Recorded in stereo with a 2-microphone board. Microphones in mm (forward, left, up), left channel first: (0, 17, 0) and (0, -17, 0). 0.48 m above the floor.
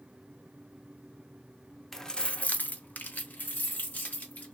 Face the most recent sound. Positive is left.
turn(degrees=50)  # may be behind; listen again after turning